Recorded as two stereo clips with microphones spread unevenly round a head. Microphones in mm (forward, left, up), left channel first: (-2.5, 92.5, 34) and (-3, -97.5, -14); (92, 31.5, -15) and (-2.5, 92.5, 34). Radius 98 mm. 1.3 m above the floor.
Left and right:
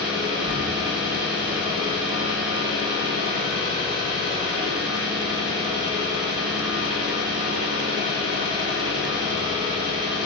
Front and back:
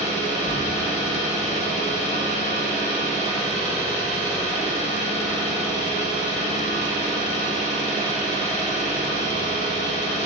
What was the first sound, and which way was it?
An engine running, 20° right.